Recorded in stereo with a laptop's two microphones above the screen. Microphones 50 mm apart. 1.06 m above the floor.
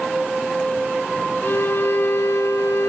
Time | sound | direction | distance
1.4 | a violin | 60° left (ahead or behind) | 1.2 m